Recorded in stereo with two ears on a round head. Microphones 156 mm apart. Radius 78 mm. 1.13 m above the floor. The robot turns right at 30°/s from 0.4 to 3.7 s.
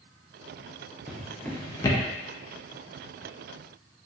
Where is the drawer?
5° right (ahead or behind), 0.5 m; by 2.0 s 25° left (ahead or behind), 0.5 m.